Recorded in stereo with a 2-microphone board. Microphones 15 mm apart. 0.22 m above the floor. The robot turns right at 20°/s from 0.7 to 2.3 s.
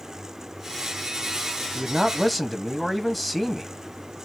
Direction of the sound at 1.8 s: 10° left (ahead or behind).